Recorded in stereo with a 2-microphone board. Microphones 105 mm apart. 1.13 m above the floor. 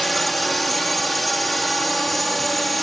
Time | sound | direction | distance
0.0 | a drone | centre (ahead or behind) | ?